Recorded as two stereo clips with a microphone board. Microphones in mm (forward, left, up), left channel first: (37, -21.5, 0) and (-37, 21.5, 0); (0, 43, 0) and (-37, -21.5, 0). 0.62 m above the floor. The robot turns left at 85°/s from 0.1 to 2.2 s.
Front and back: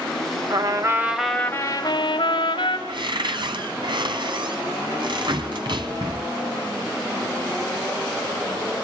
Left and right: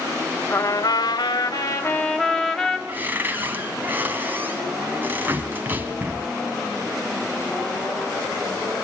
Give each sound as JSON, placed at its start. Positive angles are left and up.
{"t": 0.5, "sound": "a trumpet", "azimuth_deg": 120, "distance_m": 1.9}
{"t": 2.9, "sound": "a cupboard door", "azimuth_deg": 175, "distance_m": 1.9}